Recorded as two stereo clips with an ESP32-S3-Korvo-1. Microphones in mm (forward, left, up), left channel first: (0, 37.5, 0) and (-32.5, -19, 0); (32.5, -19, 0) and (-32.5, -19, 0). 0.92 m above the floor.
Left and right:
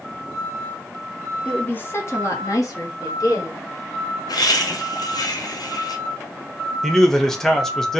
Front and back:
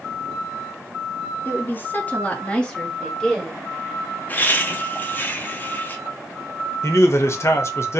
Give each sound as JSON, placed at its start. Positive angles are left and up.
{"t": 1.4, "sound": "a woman speaking", "azimuth_deg": 0, "distance_m": 0.6}
{"t": 4.3, "sound": "laughter", "azimuth_deg": 60, "distance_m": 0.7}
{"t": 6.8, "sound": "a man speaking", "azimuth_deg": -20, "distance_m": 0.6}